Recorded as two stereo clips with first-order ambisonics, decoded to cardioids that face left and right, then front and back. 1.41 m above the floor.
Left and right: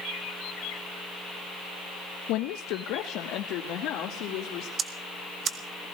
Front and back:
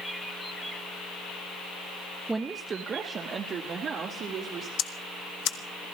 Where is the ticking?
30° right, 1.1 m.